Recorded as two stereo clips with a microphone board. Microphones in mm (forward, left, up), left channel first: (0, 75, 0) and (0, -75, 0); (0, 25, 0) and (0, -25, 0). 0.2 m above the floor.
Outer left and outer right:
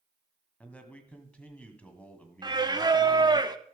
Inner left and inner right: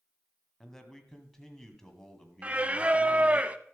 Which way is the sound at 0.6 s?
10° left (ahead or behind).